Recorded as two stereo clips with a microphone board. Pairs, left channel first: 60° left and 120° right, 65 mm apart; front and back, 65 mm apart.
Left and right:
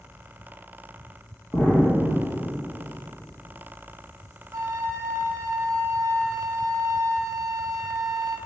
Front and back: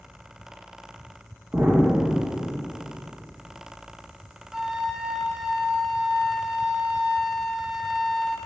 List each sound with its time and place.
1.5 s an explosion: 120° left, 1.8 m
4.5 s a flute: 100° right, 0.8 m